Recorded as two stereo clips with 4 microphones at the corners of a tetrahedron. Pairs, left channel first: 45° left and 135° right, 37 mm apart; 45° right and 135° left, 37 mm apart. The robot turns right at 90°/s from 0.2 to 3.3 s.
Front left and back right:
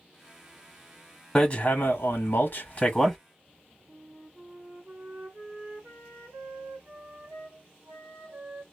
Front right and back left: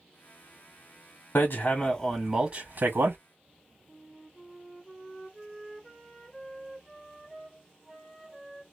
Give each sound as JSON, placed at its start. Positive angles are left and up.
{"t": 1.4, "sound": "hammering", "azimuth_deg": -25, "distance_m": 1.1}
{"t": 3.9, "sound": "a flute", "azimuth_deg": -130, "distance_m": 1.5}